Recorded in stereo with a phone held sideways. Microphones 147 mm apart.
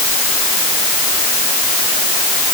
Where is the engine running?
I don't hear an engine running.